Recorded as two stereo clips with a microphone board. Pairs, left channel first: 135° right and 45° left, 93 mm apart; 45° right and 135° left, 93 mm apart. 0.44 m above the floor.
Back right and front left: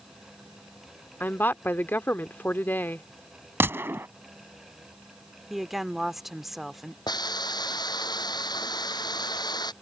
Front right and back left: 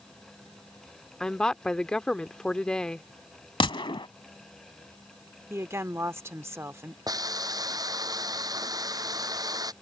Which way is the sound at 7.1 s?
175° right.